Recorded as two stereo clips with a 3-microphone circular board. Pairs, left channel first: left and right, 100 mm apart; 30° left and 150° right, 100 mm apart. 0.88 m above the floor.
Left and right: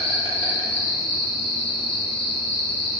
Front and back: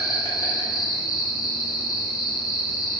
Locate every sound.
0.0 s an insect: 80° left, 0.8 m